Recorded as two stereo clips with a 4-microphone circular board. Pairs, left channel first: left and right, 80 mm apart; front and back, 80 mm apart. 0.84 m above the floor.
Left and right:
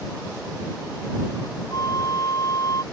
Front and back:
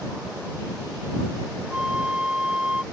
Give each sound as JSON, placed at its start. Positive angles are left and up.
{"t": 1.7, "sound": "a flute", "azimuth_deg": 105}